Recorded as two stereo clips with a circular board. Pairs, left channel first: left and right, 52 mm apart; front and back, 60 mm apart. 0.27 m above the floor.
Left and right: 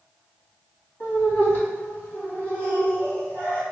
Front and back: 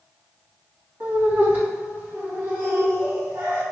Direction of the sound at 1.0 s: 130° left.